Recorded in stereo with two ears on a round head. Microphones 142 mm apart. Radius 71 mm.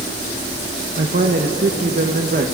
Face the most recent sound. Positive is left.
turn(degrees=-55)  # may be behind; listen again after turning